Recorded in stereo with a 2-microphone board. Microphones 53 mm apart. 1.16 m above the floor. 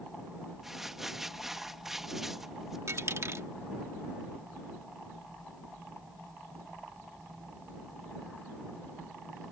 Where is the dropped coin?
55° right (ahead or behind).